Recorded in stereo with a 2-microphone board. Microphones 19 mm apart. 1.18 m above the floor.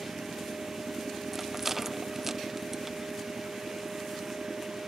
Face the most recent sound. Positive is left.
turn(degrees=-15)  # may be behind; listen again after turning